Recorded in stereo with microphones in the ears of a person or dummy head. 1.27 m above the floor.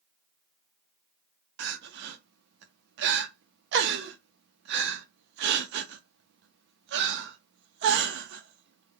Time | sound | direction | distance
1.6 | crying | 60° right (ahead or behind) | 0.5 m